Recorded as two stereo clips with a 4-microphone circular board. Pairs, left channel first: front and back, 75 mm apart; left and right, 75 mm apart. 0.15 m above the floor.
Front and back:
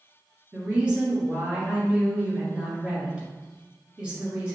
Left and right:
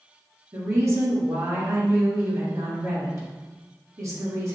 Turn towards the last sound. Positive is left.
turn(degrees=-110)